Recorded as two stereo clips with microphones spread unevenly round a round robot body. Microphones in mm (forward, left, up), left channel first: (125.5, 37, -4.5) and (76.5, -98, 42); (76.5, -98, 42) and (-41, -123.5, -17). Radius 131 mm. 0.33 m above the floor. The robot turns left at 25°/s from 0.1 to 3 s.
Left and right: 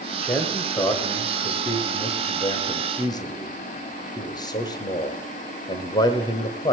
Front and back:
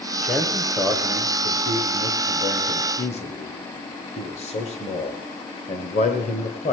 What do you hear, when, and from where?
0.2 s a man speaking: 135° left, 1.1 m; by 6.7 s 70° left, 1.1 m